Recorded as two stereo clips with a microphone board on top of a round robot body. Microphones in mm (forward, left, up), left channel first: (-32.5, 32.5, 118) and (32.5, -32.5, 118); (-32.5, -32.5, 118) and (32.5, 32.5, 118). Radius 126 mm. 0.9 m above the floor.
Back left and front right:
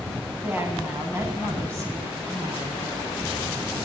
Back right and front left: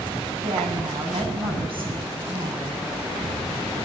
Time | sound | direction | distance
0.4 | a woman speaking | 25° left | 7.5 m